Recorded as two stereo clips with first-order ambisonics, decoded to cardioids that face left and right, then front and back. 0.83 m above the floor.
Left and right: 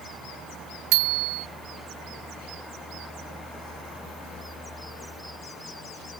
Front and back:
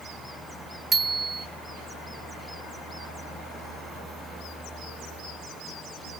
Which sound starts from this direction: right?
A bicycle bell, at 0.9 s.